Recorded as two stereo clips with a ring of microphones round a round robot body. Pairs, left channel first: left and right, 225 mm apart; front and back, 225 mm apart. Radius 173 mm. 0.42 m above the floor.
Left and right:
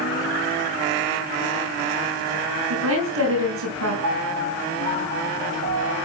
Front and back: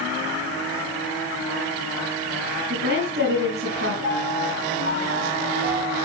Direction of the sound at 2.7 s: 125° right.